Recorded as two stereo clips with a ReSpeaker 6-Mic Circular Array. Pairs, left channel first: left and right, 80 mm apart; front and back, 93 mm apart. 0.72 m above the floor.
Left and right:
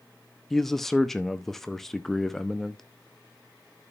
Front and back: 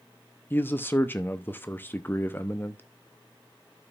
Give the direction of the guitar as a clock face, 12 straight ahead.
No guitar in this recording.